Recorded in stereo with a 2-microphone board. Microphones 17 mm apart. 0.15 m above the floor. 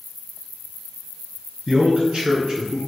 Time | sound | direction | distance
1.7 | a man speaking | 45° right (ahead or behind) | 2.5 m